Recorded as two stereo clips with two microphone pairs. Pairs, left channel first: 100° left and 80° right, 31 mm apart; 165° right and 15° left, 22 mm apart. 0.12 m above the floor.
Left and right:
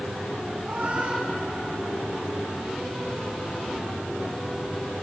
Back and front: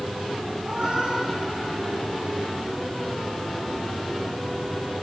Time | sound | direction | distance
0.6 | a cat meowing | 30° right | 3.5 m